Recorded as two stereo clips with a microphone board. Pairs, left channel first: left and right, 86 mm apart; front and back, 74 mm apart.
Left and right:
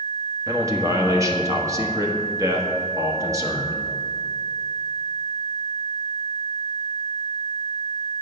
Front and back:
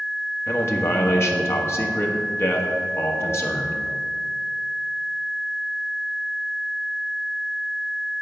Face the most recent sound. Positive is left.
turn(degrees=-45)